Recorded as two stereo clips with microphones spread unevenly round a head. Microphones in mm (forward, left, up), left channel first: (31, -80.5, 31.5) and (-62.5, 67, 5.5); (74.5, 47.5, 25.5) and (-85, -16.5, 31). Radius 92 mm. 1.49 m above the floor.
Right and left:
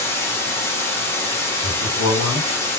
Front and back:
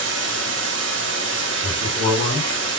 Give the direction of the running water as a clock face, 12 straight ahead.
4 o'clock.